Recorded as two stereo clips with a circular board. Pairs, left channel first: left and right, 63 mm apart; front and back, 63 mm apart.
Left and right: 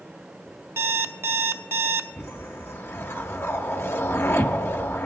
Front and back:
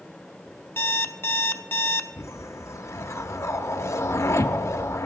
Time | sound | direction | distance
0.8 | an alarm clock | 45° right | 0.5 m
2.2 | a whoosh | 40° left | 0.6 m